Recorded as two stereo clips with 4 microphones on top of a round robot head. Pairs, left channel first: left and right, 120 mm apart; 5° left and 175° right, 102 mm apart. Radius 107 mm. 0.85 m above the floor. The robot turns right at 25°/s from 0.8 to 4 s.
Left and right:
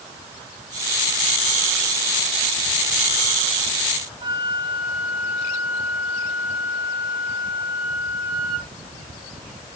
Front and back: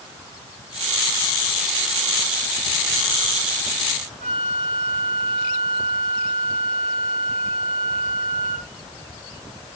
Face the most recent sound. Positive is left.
turn(degrees=-155)